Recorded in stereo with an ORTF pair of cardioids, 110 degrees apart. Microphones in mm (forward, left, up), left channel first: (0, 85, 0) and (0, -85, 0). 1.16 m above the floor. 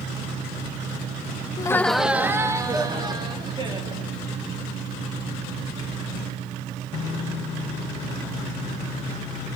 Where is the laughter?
25° left, 0.5 m; by 4.1 s 30° right, 2.5 m.